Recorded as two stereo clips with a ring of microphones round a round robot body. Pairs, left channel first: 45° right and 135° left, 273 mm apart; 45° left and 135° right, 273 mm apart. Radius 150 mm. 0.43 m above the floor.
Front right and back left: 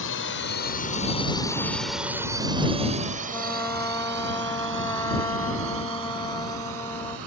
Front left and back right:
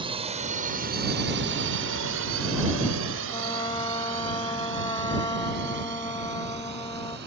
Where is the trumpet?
5° left.